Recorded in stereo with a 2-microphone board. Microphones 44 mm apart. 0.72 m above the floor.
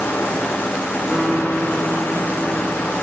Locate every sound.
1.1 s a guitar: 10° right (ahead or behind), 1.4 m